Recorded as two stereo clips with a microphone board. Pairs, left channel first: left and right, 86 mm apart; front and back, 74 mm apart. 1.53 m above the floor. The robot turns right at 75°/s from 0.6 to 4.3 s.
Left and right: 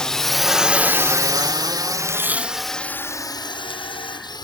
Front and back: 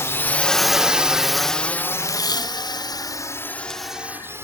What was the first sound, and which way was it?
A drone, 15° left.